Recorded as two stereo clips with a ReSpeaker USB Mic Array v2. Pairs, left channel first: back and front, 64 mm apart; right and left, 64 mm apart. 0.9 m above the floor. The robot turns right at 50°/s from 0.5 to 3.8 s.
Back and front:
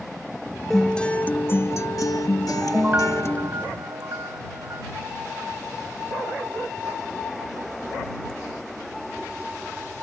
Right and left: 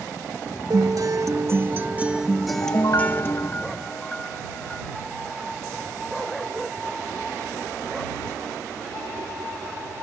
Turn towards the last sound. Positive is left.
turn(degrees=-15)